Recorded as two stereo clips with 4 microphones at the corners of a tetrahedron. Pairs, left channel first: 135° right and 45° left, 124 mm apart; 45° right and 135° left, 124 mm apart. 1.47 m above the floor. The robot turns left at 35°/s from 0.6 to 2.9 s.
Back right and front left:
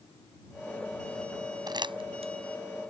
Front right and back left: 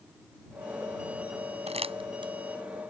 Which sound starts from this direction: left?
Crumpling, at 1.7 s.